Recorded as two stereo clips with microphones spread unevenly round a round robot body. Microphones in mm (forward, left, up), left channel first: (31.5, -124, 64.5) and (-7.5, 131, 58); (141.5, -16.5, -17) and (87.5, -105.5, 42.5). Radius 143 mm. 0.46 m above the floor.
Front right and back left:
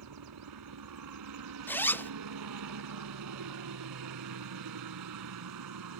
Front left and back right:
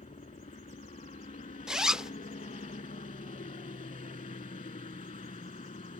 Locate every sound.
0.0 s a helicopter: 90° left
1.7 s a zipper: straight ahead